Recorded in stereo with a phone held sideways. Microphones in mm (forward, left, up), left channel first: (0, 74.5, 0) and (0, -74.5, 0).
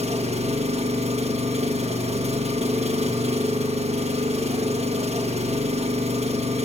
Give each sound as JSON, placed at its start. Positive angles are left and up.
{"t": 0.0, "sound": "an engine running", "side_deg": -45, "distance_m": 1.3}